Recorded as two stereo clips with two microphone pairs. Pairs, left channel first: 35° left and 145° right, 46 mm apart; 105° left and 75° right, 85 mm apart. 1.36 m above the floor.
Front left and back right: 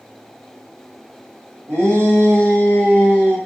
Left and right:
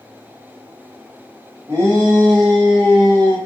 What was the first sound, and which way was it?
A shout, 135° right.